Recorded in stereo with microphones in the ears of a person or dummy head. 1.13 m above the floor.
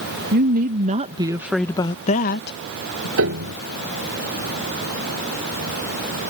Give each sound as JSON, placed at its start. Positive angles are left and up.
{"t": 0.3, "sound": "a woman speaking", "side_deg": -55}
{"t": 3.2, "sound": "a piano", "side_deg": -65}